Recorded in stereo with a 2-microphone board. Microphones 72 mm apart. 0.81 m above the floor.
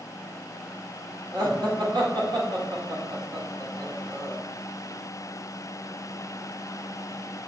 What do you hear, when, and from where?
1.3 s laughter: 75° right (ahead or behind), 2.5 m